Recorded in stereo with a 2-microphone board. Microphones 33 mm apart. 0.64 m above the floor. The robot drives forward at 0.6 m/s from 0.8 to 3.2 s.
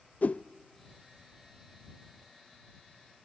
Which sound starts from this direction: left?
A whoosh, at 0.2 s.